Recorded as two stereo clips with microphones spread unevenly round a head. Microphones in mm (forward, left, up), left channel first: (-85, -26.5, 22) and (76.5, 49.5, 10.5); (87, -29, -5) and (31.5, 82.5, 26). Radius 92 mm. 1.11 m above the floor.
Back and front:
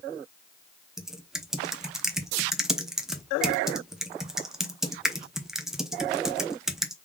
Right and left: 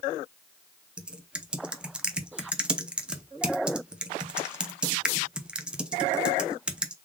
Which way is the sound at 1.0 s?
120° left.